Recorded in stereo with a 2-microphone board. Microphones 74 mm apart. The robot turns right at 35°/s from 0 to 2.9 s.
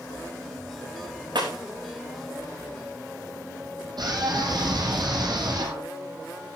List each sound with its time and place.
1.4 s breaking glass: 80° right, 5 m
4.0 s a scream: 65° right (ahead or behind), 4.5 m